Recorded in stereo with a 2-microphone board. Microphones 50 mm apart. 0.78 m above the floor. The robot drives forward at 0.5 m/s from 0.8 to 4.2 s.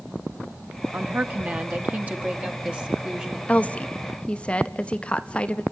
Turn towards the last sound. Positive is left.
turn(degrees=20)  # may be behind; listen again after turning